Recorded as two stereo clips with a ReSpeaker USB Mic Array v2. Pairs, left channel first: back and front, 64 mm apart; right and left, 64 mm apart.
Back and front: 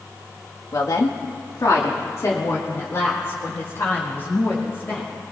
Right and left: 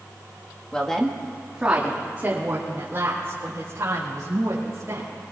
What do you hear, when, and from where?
0.7 s a woman speaking: 165° right, 1.5 m; by 5.1 s 125° left, 5.5 m